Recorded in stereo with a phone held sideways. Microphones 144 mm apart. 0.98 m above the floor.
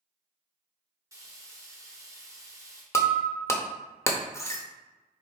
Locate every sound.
1.1 s frying: 20° right (ahead or behind), 0.9 m
2.9 s breaking glass: 20° left (ahead or behind), 0.6 m